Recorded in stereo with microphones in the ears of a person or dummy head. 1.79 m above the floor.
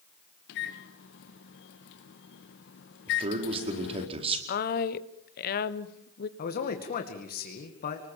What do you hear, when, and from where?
0.5 s a microwave: 55° left (ahead or behind), 1.3 m
3.1 s a man speaking: 35° right (ahead or behind), 4.5 m
4.5 s a woman speaking: 50° left (ahead or behind), 1.4 m
6.4 s a man speaking: 45° left (ahead or behind), 2.5 m